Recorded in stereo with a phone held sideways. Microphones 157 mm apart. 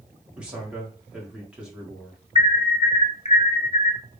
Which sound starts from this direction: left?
An alarm, at 2.4 s.